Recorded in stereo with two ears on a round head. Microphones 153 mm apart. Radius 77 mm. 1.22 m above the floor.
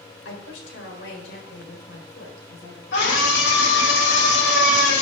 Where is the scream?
80° left, 4 m.